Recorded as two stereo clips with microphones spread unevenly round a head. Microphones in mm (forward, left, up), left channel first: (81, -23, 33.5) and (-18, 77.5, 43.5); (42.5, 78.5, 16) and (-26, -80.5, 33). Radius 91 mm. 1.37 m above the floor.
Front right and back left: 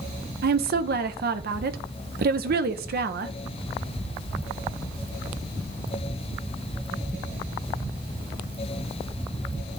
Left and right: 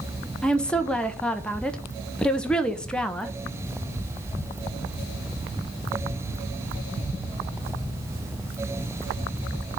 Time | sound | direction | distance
0.4 | a woman speaking | 150° left | 0.7 m